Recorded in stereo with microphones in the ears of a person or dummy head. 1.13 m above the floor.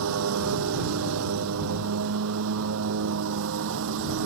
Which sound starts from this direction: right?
A lawn mower, at 0.0 s.